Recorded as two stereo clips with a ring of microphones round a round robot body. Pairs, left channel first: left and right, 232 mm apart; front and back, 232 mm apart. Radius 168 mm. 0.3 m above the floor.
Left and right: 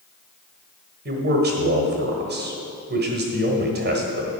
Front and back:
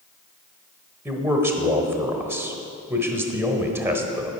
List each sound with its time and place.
1.1 s a man speaking: 105° right, 1.3 m